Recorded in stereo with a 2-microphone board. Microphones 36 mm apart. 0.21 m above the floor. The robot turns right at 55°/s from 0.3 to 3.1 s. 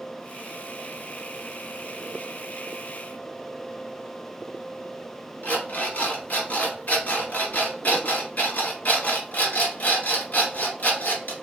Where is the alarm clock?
50° left (ahead or behind), 1.7 m.